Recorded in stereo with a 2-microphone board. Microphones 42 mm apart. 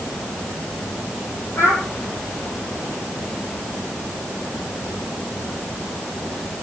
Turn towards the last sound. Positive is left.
turn(degrees=70)  # may be behind; listen again after turning